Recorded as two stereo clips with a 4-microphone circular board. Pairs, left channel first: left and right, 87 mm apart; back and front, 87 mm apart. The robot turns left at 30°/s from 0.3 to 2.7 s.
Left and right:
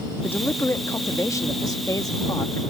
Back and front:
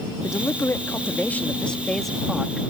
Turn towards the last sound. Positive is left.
turn(degrees=75)